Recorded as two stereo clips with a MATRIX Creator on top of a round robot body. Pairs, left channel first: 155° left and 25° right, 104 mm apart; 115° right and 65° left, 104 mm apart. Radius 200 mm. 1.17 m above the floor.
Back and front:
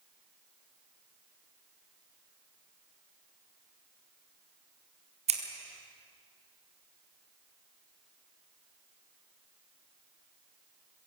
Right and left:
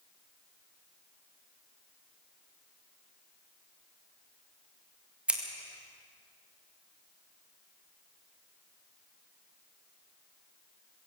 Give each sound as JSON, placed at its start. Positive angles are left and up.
{"t": 5.3, "sound": "scissors", "azimuth_deg": -10, "distance_m": 2.0}